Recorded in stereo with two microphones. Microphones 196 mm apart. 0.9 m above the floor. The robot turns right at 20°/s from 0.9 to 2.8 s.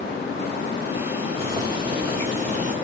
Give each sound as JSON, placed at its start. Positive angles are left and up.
{"t": 1.4, "sound": "boiling", "side_deg": -15, "distance_m": 1.1}